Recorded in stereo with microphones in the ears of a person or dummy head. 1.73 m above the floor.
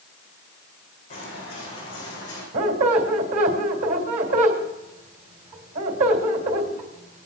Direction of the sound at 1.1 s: 40° left (ahead or behind).